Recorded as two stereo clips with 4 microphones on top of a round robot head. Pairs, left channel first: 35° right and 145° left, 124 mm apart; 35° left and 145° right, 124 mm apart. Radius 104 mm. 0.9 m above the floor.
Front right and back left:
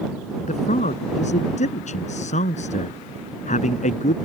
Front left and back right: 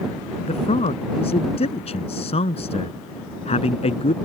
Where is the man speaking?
5° right.